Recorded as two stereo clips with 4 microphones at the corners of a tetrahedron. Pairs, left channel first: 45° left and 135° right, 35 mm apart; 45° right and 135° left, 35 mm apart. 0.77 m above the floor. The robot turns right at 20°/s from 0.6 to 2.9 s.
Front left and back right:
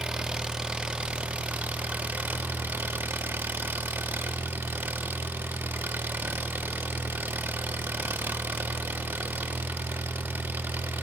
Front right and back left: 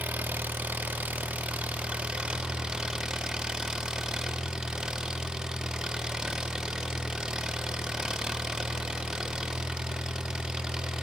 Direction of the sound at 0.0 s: 160° left.